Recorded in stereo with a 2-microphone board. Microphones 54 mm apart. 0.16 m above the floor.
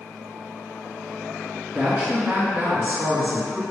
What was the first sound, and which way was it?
A woman speaking, 30° right (ahead or behind).